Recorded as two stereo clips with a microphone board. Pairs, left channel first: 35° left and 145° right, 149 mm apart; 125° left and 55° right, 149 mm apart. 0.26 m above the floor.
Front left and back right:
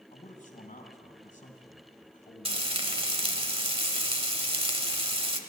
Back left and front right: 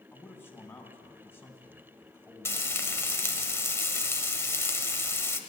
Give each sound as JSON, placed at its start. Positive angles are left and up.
{"t": 0.1, "sound": "a man speaking", "azimuth_deg": 50, "distance_m": 2.0}
{"t": 2.5, "sound": "frying", "azimuth_deg": -170, "distance_m": 1.0}